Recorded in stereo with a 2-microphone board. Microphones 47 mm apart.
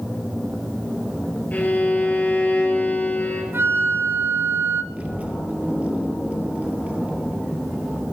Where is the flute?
50° right (ahead or behind), 0.6 m.